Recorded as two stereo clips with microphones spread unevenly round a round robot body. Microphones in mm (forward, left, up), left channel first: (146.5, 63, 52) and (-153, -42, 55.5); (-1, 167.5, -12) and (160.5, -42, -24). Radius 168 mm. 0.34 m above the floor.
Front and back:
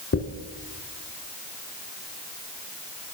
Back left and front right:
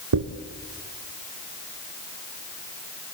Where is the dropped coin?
40° right, 1.6 m.